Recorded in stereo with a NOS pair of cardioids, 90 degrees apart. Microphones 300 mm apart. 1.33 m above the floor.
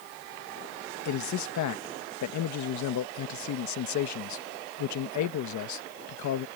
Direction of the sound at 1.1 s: 70° left.